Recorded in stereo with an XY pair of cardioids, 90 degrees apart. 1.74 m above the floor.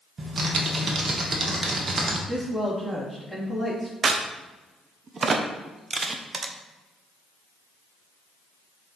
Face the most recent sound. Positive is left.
turn(degrees=-45)